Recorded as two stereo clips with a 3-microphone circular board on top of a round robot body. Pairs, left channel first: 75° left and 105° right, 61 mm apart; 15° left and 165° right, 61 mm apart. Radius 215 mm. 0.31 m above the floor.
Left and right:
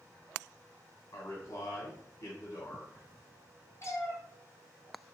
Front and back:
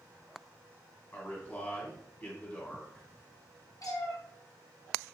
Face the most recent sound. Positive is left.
turn(degrees=35)